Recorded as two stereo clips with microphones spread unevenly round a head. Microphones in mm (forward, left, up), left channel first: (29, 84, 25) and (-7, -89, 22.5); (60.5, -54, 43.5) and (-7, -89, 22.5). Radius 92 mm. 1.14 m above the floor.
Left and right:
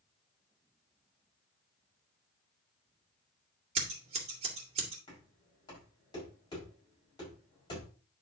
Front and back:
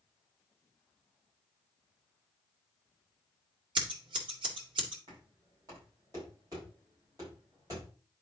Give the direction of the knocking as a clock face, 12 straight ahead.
7 o'clock.